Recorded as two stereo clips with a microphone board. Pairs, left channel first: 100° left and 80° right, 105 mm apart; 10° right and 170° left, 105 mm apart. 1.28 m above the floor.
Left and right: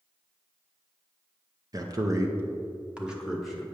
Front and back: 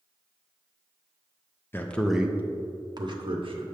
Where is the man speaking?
70° right, 0.7 m; by 3.6 s 165° right, 1.3 m.